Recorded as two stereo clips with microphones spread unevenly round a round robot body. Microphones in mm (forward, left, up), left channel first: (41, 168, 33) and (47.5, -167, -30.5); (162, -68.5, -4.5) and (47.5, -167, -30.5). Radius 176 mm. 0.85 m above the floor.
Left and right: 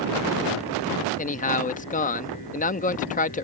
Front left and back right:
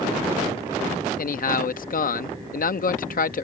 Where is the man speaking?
20° left.